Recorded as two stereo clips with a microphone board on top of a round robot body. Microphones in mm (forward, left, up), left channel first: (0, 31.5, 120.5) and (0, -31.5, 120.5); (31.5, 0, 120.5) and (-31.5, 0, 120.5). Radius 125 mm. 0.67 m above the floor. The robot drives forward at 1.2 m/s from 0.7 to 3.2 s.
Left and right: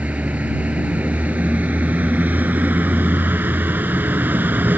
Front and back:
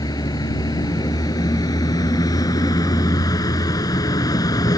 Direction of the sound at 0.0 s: 20° right.